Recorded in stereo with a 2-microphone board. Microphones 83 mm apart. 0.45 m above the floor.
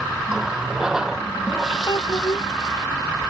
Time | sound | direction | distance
0.3 | a running tap | 5° right (ahead or behind) | ?
1.9 | a child speaking | 60° left (ahead or behind) | ?